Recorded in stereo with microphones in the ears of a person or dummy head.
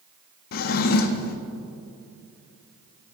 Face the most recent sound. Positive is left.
turn(degrees=50)  # may be behind; listen again after turning